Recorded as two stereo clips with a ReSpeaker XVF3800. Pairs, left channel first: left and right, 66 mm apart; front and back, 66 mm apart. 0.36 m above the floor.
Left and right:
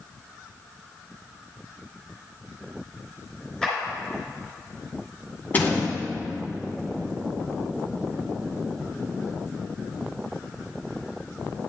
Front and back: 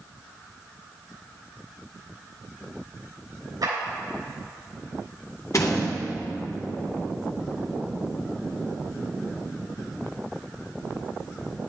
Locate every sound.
3.6 s a clap: 170° left, 3.5 m
5.5 s a door slam: 30° left, 2 m